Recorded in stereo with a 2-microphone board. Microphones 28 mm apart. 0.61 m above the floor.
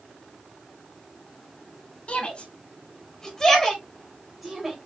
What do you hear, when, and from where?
2.1 s a shout: 45° left (ahead or behind), 1.7 m; by 4.8 s 15° right (ahead or behind), 2.5 m